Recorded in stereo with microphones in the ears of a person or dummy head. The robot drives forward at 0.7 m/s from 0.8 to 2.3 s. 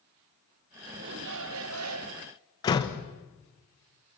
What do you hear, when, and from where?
1.0 s a shout: 60° right (ahead or behind), 1.2 m; by 2.3 s 75° right (ahead or behind), 1.1 m
2.6 s a door slam: 20° left (ahead or behind), 1.1 m